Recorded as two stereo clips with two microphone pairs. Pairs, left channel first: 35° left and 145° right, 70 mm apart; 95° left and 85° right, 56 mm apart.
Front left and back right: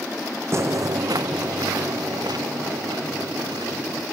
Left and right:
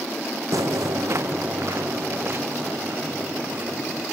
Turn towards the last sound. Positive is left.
turn(degrees=-130)